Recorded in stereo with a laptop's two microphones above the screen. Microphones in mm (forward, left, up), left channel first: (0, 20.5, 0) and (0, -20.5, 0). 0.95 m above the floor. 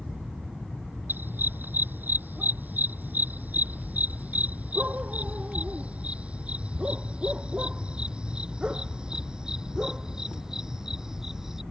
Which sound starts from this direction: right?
A dog barking, at 1.1 s.